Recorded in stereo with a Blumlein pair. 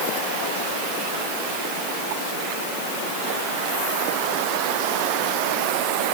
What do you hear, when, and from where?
Only background noise.